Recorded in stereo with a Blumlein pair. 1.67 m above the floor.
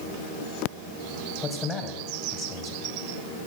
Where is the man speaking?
20° left, 1.5 m.